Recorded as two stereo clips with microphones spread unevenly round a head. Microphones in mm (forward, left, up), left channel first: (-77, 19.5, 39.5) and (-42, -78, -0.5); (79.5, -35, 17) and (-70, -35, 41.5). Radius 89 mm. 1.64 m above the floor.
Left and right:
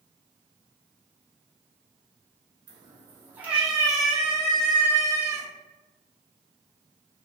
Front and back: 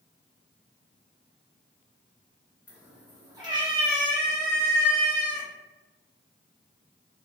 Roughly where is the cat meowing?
Right.